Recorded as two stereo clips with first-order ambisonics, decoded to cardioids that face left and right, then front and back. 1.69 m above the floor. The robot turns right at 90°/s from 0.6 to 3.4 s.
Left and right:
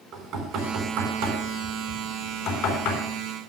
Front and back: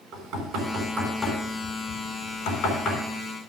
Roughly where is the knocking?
Behind right.